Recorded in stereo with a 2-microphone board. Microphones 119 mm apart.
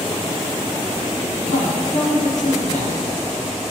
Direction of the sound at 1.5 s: 75° left (ahead or behind).